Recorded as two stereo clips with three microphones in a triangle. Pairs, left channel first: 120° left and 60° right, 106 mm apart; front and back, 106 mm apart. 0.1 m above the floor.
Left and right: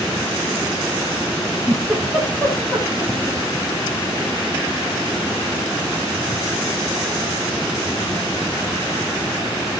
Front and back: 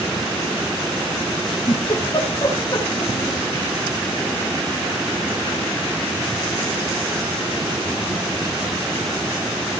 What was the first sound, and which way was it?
A giggle, 40° left.